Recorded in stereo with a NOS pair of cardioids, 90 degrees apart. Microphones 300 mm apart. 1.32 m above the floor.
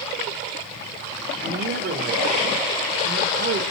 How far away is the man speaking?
About 5 m.